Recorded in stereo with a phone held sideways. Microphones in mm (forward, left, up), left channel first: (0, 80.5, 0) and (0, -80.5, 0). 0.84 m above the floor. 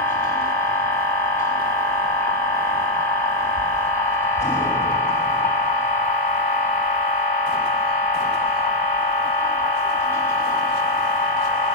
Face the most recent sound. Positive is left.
turn(degrees=15)  # may be behind; listen again after turning